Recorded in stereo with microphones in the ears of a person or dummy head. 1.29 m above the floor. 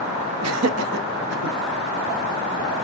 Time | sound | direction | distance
0.4 | laughter | 70° right (ahead or behind) | 0.6 m